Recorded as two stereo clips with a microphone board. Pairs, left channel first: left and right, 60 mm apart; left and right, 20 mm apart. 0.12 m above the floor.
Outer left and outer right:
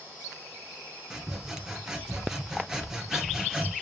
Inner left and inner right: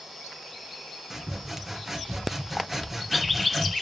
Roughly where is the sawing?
Centre.